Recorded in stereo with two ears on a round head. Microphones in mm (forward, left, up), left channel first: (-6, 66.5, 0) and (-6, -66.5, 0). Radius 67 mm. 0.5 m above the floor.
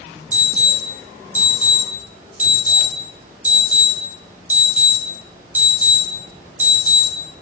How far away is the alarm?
About 3.5 m.